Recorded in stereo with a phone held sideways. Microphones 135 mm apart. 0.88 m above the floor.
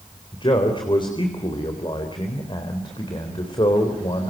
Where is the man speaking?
35° left (ahead or behind), 4 m.